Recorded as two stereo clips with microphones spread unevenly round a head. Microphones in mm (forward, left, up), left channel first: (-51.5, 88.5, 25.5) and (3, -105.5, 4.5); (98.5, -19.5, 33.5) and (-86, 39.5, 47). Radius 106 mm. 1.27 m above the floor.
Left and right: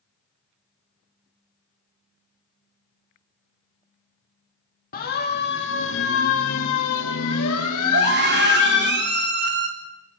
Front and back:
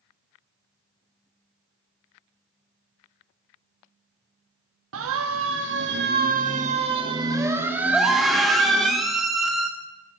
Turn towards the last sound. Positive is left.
turn(degrees=-110)